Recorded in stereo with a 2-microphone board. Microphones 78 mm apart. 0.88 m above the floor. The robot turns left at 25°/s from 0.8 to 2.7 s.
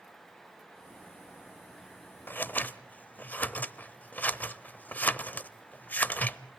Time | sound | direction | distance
2.3 | scissors | 30° left (ahead or behind) | 0.7 m